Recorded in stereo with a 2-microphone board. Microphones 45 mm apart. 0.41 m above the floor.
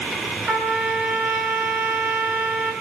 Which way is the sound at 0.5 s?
40° right (ahead or behind).